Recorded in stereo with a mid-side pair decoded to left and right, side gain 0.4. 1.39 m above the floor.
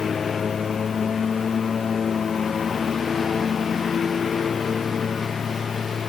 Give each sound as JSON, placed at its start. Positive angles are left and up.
{"t": 0.0, "sound": "a lawn mower", "azimuth_deg": 50}